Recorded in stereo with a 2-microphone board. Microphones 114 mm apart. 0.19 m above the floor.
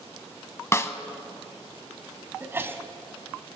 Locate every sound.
0.7 s a snare drum: 25° left (ahead or behind), 0.7 m
2.4 s a sneeze: 20° right (ahead or behind), 1.1 m